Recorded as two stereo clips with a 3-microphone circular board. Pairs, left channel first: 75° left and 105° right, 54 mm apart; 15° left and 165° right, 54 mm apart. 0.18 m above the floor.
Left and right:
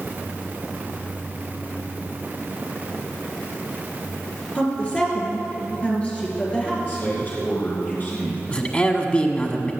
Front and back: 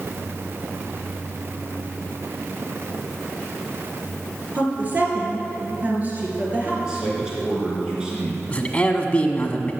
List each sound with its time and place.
4.5 s a woman speaking: 140° left, 3.5 m
6.8 s a man speaking: 120° left, 3 m
8.5 s a man speaking: 45° left, 1.2 m